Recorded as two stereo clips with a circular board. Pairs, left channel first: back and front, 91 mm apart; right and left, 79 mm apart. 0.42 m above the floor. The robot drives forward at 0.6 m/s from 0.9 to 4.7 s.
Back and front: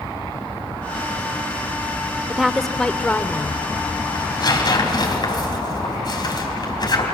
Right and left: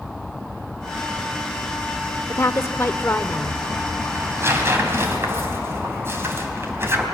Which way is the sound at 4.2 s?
145° left.